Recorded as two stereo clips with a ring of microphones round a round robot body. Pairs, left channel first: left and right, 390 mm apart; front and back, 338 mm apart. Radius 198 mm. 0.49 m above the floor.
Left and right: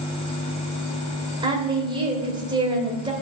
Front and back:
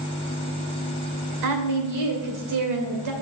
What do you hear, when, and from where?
1.4 s a woman speaking: 165° right, 2.5 m